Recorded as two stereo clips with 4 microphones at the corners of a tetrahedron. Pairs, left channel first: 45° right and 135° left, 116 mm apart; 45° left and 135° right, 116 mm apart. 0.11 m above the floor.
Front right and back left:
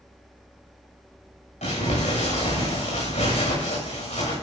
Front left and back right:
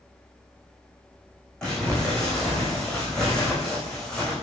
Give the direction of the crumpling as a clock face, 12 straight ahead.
1 o'clock.